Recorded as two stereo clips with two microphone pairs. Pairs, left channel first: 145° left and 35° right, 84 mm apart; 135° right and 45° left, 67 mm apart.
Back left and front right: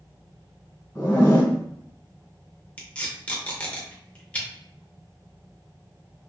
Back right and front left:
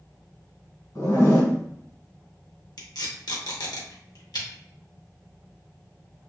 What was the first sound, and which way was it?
A zipper, 165° right.